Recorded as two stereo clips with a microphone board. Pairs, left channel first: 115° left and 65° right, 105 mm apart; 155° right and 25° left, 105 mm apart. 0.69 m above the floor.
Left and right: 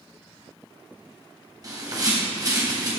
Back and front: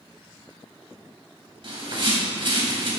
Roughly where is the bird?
Ahead.